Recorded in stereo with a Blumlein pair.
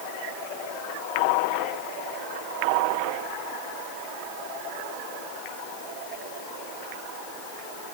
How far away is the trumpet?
I don't hear a trumpet.